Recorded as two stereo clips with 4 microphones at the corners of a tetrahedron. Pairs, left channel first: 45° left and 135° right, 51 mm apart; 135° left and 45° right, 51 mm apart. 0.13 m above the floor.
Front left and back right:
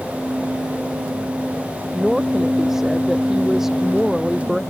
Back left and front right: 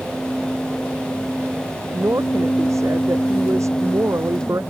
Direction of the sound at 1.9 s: 50° right.